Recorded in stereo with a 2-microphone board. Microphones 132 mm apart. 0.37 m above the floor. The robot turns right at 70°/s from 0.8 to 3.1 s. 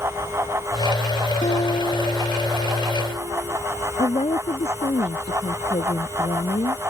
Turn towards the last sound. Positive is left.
turn(degrees=50)  # may be behind; listen again after turning